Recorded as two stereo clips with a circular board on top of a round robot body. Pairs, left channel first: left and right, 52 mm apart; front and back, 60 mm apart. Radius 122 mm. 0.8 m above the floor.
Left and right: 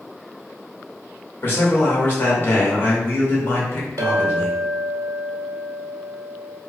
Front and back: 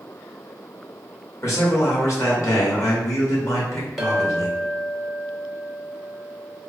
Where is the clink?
95° right, 0.5 m.